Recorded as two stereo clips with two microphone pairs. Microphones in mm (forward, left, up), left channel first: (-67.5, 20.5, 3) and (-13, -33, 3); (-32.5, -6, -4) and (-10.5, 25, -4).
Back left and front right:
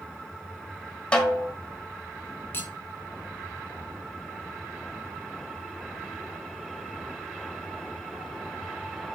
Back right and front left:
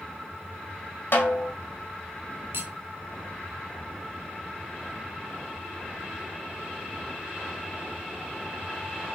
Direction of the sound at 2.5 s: 75° left.